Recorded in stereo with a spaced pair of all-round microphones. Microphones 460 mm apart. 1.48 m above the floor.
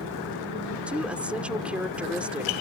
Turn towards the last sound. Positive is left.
turn(degrees=0)  # may be behind; listen again after turning